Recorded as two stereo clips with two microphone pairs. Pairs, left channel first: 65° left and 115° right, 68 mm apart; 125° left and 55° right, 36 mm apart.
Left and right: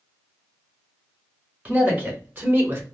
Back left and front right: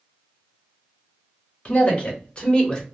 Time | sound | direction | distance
1.6 | a man speaking | straight behind | 2 m